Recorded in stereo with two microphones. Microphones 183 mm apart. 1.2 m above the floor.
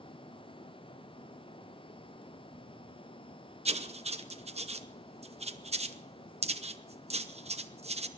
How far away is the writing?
About 0.8 m.